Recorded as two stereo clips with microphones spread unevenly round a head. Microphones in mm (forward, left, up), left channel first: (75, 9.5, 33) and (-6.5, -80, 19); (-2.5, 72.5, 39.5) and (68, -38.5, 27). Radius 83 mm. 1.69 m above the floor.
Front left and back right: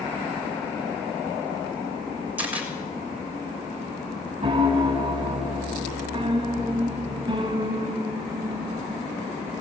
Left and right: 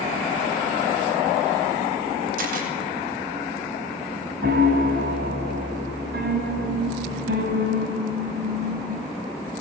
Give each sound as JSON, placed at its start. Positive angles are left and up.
{"t": 2.4, "sound": "a camera shutter", "azimuth_deg": -55, "distance_m": 7.0}
{"t": 4.4, "sound": "a piano", "azimuth_deg": -80, "distance_m": 4.5}